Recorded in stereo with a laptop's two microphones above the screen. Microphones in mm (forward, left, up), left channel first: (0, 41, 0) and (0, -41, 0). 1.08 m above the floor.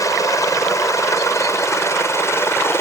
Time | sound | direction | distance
0.0 | a helicopter | 40° left (ahead or behind) | ?